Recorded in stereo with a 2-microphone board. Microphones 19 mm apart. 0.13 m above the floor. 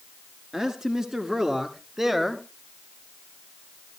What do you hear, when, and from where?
0.5 s a man speaking: 25° right (ahead or behind), 1.7 m; by 2.5 s 15° right (ahead or behind), 1.5 m